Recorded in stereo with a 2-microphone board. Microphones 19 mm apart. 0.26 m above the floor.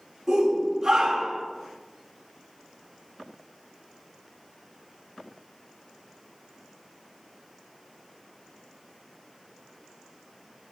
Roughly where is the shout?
Right.